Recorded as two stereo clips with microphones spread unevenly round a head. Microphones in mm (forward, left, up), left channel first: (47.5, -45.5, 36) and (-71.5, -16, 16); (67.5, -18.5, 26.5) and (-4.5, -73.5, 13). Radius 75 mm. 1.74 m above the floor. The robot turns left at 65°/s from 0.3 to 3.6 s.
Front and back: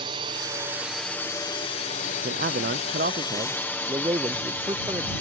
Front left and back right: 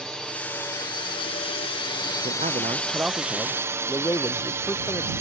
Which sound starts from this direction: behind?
A man speaking, at 2.2 s.